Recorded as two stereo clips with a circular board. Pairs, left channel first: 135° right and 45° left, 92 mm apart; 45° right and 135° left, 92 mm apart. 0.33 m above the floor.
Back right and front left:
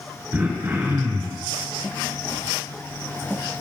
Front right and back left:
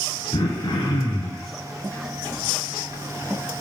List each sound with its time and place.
0.3 s throat clearing: 20° right, 2.5 m